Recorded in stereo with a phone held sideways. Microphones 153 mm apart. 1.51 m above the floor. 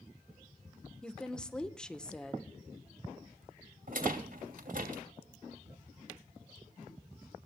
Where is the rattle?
65° right (ahead or behind), 3 m.